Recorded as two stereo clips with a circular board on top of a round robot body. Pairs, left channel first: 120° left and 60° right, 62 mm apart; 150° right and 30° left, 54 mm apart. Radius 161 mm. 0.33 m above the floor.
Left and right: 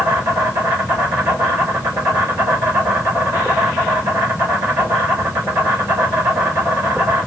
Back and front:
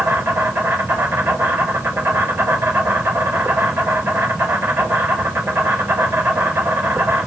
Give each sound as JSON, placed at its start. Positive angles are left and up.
{"t": 0.0, "sound": "an insect", "azimuth_deg": -15, "distance_m": 3.5}